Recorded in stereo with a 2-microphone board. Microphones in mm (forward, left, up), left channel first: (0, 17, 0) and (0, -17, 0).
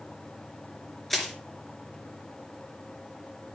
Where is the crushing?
5° left (ahead or behind), 3.5 m.